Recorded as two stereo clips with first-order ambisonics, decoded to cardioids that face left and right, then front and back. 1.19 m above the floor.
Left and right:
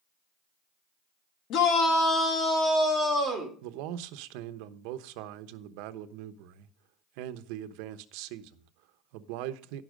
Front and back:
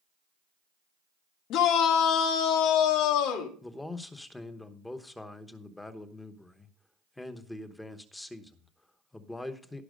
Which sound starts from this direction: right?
A man speaking, at 3.6 s.